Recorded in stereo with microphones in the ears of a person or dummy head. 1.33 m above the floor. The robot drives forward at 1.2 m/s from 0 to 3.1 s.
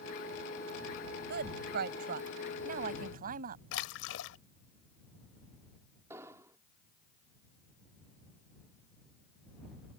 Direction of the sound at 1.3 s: 55° right (ahead or behind).